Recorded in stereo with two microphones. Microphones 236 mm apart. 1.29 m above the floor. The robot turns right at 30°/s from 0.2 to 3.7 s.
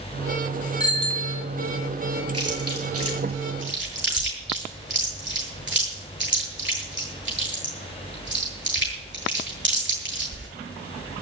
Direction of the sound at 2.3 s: 85° right.